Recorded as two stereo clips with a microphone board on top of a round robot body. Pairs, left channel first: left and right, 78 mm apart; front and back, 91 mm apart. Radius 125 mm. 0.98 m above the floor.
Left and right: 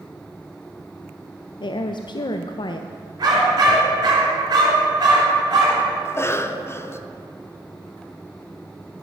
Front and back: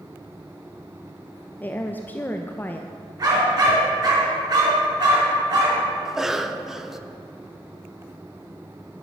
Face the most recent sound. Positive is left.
turn(degrees=100)